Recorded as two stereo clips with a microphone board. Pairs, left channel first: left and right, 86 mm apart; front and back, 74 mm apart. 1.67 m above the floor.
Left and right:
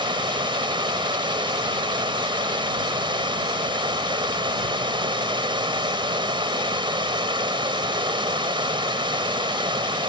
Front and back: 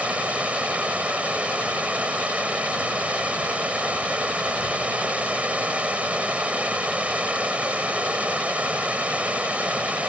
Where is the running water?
105° right.